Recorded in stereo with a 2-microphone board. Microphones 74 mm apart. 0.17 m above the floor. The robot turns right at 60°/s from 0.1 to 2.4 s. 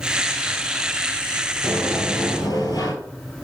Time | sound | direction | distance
1.6 | a sliding door | 25° left | 2.5 m